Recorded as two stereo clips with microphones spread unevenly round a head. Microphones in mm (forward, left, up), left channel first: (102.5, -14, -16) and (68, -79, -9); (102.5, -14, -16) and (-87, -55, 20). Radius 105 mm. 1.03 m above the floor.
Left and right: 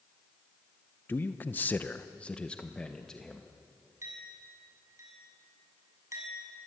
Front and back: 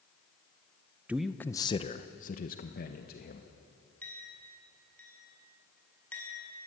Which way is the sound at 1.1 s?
100° left.